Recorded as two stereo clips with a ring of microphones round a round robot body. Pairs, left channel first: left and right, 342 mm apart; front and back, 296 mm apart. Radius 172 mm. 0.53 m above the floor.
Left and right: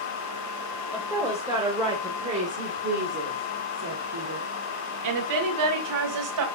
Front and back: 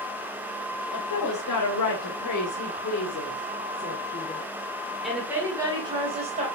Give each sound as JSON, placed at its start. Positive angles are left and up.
{"t": 0.9, "sound": "a woman speaking", "azimuth_deg": -5, "distance_m": 2.5}